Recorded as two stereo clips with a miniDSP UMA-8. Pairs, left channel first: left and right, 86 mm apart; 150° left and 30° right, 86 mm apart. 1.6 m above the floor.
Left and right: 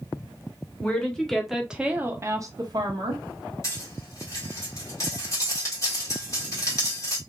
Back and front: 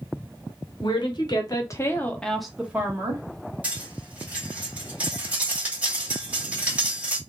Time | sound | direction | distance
0.8 | a woman speaking | 165° left | 1.0 m
3.6 | cutlery clinking | 45° left | 1.4 m